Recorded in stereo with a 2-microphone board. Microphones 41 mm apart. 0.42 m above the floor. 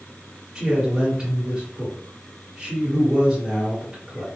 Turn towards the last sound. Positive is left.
turn(degrees=-20)  # may be behind; listen again after turning